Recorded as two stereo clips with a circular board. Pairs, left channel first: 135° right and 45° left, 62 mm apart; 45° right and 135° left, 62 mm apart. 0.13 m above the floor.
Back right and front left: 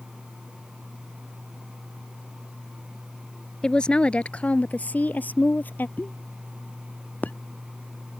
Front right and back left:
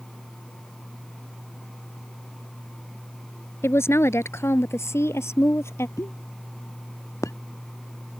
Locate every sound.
3.6 s a woman speaking: 60° right; by 5.9 s 80° right
6.0 s a pop: 75° right